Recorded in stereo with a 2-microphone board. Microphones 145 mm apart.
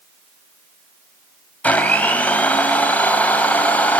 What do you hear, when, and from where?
1.6 s a blender: 10° left (ahead or behind), 2.5 m